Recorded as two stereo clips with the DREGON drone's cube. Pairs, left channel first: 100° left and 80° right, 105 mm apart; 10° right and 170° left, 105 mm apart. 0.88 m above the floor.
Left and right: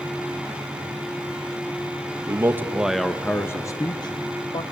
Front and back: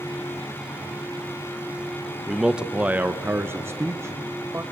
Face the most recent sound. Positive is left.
turn(degrees=110)